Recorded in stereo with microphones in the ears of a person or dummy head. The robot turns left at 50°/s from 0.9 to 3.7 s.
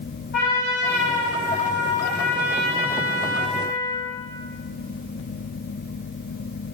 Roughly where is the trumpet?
Behind left.